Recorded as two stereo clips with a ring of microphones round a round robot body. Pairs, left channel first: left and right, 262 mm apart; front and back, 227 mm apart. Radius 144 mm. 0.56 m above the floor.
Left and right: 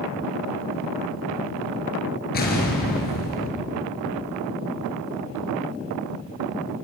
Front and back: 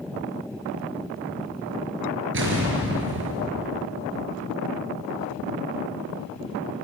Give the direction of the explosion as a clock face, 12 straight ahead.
7 o'clock.